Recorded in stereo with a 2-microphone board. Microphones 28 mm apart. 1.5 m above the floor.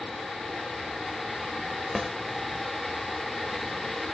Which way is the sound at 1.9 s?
5° right (ahead or behind).